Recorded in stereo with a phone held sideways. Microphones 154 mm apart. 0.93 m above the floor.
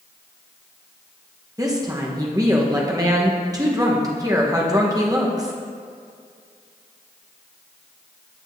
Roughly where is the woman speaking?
Right.